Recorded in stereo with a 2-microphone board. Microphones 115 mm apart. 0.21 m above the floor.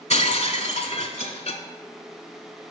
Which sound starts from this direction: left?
Breaking glass, at 0.1 s.